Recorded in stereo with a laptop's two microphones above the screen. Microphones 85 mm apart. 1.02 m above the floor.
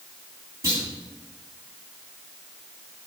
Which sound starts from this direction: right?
A clunk, at 0.6 s.